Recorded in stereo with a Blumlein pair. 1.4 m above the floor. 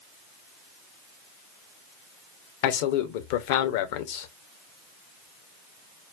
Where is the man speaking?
50° left, 0.7 m.